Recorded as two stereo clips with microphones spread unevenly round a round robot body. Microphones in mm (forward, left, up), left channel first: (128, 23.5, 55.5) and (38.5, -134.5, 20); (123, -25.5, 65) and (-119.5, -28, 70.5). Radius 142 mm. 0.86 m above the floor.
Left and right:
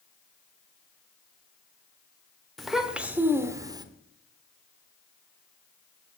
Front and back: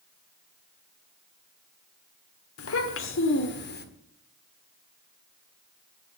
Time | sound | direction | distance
2.6 | a child speaking | 30° right | 1.8 m